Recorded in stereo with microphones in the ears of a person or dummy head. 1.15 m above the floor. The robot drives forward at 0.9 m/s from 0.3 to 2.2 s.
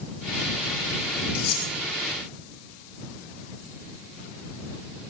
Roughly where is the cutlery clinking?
Left.